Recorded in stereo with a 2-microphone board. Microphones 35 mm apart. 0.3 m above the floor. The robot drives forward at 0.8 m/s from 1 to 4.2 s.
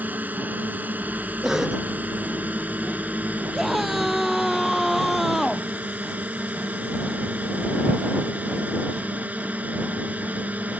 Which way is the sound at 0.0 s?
55° right (ahead or behind).